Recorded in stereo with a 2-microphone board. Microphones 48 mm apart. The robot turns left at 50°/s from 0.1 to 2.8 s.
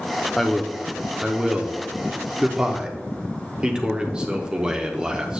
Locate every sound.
0.4 s a man speaking: centre (ahead or behind), 0.7 m; by 5.4 s 20° right (ahead or behind), 0.7 m